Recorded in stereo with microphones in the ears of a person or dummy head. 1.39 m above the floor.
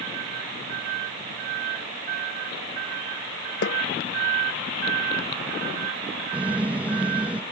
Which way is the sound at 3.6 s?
70° left (ahead or behind).